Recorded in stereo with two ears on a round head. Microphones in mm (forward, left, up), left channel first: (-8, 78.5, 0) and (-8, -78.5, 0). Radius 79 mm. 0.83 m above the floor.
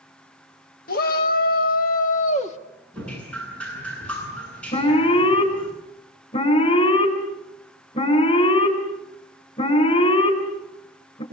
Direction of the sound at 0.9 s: 55° left (ahead or behind).